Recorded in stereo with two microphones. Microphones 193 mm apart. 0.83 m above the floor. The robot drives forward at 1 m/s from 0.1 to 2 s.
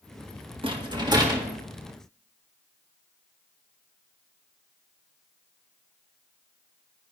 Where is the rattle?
25° right (ahead or behind), 1.2 m; by 1.5 s 15° right (ahead or behind), 1.9 m.